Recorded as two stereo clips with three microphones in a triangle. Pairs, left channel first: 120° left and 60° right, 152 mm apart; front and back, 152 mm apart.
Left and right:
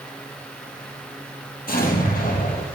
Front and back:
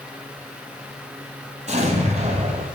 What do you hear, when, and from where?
1.7 s an explosion: 140° left, 3.5 m